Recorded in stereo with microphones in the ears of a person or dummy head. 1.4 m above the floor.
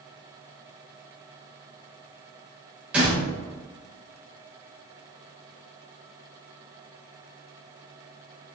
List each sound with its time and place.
2.9 s a door slam: 10° right (ahead or behind), 1.1 m